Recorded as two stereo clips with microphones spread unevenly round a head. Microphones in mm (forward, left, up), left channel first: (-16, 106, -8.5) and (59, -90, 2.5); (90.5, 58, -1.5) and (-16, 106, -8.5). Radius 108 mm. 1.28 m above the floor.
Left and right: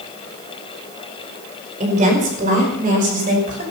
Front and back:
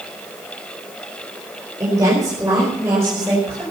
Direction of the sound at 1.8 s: 130° right.